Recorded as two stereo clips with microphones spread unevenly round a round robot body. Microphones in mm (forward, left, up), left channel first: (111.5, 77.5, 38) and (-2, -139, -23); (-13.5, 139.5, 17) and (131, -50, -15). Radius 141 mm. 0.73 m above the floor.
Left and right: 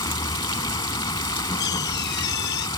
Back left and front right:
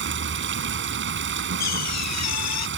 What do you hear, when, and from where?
0.0 s running water: 10° right
1.6 s a door slam: 120° left